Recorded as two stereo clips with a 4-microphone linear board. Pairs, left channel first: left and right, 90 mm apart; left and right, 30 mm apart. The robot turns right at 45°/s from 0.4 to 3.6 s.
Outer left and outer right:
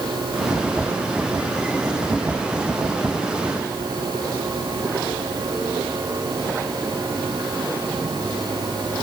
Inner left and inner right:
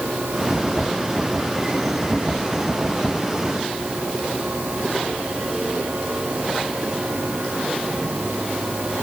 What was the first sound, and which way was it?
Only background noise.